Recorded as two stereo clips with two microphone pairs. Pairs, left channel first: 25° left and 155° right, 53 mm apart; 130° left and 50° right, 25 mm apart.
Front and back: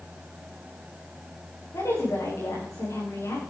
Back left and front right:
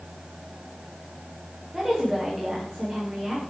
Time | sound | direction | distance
1.7 | a woman speaking | 40° left | 9 m